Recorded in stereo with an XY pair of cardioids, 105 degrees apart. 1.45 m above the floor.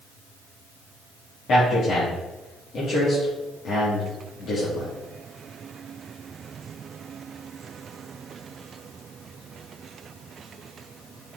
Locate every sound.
1.5 s a man speaking: 55° left, 3 m